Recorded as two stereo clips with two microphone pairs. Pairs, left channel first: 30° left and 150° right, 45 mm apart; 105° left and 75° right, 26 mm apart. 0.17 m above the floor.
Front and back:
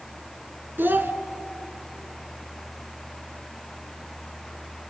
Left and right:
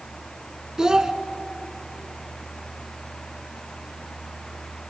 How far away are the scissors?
No scissors in this recording.